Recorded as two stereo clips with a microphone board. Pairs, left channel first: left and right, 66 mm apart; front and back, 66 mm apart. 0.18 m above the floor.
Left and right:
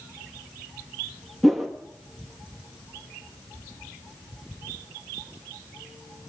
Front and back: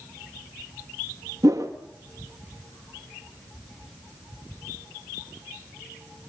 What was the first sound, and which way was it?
A whoosh, straight behind.